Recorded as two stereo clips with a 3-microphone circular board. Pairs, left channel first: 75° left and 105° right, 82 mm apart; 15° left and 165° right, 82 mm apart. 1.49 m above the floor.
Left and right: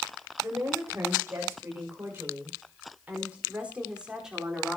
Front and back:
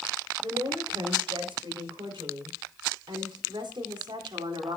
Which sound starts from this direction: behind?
A woman speaking, at 0.4 s.